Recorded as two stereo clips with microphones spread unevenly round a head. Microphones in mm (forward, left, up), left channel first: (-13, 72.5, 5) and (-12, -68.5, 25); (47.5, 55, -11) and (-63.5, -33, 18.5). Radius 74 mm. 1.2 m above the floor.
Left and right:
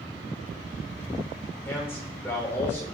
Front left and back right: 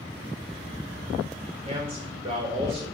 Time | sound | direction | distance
1.6 | a man speaking | 165° left | 4.5 m